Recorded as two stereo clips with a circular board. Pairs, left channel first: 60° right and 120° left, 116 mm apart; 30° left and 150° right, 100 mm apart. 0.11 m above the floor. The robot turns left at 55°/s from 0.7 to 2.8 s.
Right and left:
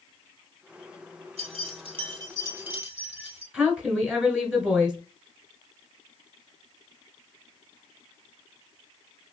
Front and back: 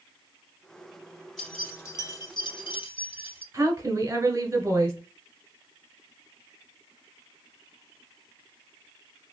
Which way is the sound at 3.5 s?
165° right.